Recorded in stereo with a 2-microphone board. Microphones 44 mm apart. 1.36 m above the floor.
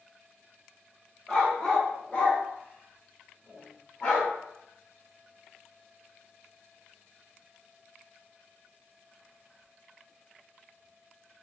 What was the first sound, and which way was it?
A dog barking, 15° left (ahead or behind).